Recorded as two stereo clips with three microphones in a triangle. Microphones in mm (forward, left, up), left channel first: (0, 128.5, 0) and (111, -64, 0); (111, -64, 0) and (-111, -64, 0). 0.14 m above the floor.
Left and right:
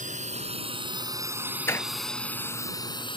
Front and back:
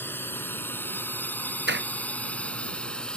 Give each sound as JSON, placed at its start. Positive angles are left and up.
{"t": 0.0, "sound": "a drone", "azimuth_deg": -75}
{"t": 1.7, "sound": "a door slam", "azimuth_deg": -165}